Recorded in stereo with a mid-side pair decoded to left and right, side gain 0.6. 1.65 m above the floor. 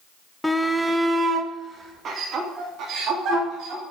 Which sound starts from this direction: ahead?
A shout, at 0.4 s.